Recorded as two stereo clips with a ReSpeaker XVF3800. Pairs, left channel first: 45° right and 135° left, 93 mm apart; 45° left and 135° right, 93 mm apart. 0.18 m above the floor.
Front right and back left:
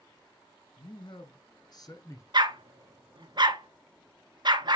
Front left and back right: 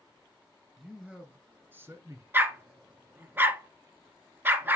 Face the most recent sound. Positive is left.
turn(degrees=160)